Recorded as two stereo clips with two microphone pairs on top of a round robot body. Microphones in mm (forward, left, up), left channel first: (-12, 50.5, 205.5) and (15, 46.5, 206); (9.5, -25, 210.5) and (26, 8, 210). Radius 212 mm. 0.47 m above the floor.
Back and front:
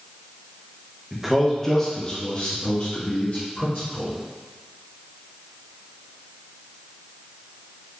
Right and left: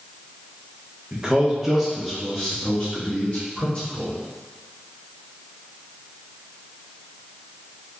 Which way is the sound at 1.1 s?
65° left.